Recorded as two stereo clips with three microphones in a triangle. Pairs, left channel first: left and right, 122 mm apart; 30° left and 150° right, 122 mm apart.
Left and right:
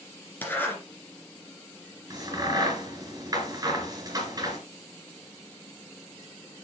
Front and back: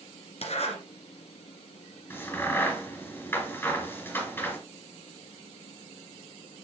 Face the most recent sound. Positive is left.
turn(degrees=-35)